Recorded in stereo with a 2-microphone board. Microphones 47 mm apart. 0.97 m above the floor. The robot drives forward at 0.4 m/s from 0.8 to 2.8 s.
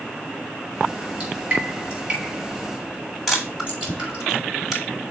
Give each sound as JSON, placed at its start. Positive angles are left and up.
{"t": 1.2, "sound": "dripping", "side_deg": -30, "distance_m": 3.5}
{"t": 3.3, "sound": "a camera shutter", "side_deg": -5, "distance_m": 2.0}